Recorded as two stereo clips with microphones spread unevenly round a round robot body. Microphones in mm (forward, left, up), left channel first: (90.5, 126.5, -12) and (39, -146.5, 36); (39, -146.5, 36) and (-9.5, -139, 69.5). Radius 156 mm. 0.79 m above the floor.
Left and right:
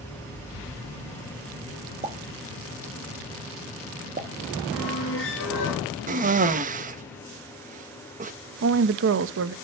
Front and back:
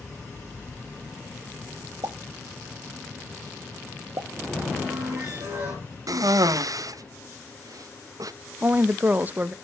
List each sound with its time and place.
2.0 s a pop: 175° right, 1.4 m
4.7 s a squeak: 135° left, 3 m
6.1 s a cough: 160° right, 0.9 m
8.6 s a woman speaking: 90° right, 0.7 m